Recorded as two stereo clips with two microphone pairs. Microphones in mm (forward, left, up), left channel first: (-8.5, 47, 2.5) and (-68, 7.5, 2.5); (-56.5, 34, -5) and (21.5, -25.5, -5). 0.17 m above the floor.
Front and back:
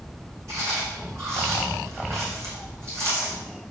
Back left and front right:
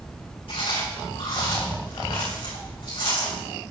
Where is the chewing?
165° left, 4 m.